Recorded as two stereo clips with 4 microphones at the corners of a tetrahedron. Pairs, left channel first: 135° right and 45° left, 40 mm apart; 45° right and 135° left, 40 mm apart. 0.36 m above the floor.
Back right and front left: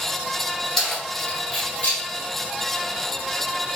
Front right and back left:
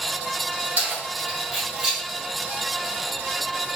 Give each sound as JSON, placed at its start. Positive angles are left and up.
{"t": 0.8, "sound": "keys jangling", "azimuth_deg": 140, "distance_m": 1.3}